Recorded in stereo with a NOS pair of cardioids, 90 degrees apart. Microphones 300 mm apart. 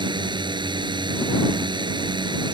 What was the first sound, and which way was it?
A drone, 15° right.